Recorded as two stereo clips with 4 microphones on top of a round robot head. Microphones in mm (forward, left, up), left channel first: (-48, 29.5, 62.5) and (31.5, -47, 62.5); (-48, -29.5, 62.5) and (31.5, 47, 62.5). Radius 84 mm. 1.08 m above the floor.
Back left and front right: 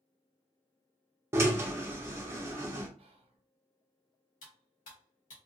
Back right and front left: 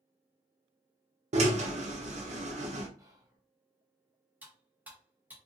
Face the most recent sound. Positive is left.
turn(degrees=120)